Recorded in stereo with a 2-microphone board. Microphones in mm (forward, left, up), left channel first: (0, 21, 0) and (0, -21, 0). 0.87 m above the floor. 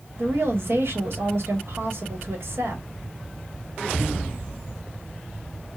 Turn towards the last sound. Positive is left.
turn(degrees=-75)  # may be behind; listen again after turning